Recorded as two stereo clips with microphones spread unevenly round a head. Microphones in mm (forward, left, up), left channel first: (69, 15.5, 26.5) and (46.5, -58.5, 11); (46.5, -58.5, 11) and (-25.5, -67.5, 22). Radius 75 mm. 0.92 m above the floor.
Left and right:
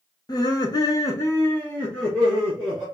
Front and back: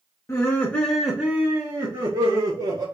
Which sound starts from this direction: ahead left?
Laughter, at 0.3 s.